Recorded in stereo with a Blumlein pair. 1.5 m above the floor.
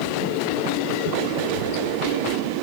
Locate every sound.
1.4 s a child speaking: 65° left, 8.5 m